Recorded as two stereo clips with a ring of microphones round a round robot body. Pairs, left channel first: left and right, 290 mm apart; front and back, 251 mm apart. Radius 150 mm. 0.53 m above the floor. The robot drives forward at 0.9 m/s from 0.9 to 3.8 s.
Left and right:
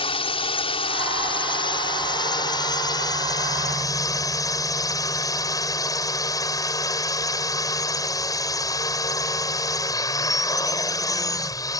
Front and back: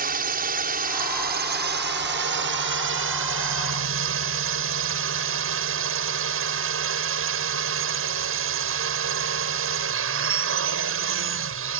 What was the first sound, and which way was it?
A drone, 150° left.